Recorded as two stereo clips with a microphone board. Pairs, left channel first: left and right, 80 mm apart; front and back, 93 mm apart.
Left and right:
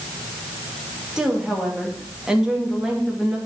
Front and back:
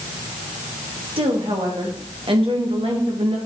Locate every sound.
1.2 s a woman speaking: 175° right, 2.5 m